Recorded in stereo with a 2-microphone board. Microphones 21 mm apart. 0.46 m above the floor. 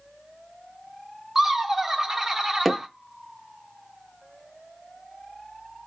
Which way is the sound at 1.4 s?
20° right (ahead or behind).